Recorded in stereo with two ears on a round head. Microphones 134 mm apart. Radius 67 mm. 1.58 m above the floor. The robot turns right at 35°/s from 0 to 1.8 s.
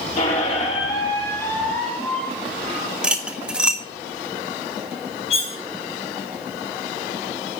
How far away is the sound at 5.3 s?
About 1.1 m.